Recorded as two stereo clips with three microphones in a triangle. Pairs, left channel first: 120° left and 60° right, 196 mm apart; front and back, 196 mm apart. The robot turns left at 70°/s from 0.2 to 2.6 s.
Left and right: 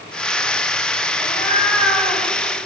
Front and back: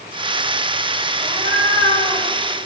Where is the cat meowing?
75° left, 9 m; by 2.2 s straight ahead, 9 m.